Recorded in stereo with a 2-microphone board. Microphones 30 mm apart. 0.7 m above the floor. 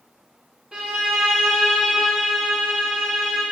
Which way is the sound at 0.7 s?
40° right (ahead or behind).